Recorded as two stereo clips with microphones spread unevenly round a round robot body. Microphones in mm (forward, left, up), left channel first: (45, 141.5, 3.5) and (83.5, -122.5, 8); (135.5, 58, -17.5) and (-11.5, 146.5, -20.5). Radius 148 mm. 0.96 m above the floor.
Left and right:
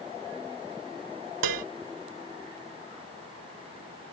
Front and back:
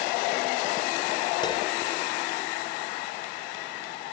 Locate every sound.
1.4 s dishes clattering: 105° right